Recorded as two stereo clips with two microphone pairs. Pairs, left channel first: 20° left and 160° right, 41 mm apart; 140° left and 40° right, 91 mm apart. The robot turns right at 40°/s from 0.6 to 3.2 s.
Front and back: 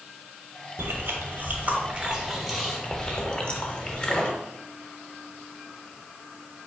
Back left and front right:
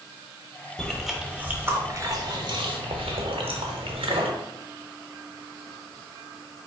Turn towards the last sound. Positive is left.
turn(degrees=-40)